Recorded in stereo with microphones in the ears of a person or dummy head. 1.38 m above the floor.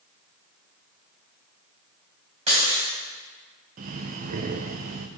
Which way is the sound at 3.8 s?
40° right (ahead or behind).